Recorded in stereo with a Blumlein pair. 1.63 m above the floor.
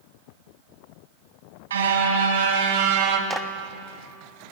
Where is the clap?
10° right, 1.6 m.